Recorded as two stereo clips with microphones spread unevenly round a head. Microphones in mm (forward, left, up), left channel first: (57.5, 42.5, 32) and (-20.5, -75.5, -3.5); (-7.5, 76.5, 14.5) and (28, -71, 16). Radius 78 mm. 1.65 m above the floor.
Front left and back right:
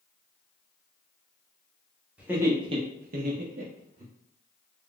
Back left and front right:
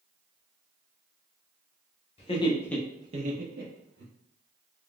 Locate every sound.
2.2 s laughter: 155° left, 0.9 m; by 4.1 s 80° right, 1.1 m